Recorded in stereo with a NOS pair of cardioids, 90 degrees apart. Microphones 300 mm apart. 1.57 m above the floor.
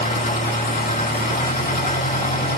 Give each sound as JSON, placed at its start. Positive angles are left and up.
{"t": 0.0, "sound": "an engine running", "azimuth_deg": 25, "distance_m": 7.5}